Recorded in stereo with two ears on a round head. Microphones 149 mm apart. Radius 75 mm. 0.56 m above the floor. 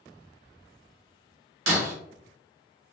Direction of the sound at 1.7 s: 80° right.